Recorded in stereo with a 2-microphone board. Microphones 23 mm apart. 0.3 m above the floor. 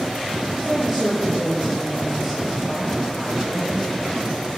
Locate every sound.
0.6 s a woman speaking: 5° right (ahead or behind), 5.5 m